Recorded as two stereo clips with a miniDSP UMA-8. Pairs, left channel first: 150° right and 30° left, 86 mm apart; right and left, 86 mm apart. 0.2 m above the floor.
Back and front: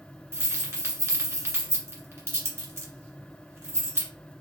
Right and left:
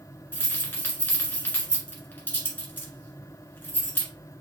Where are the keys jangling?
25° right, 1.6 m.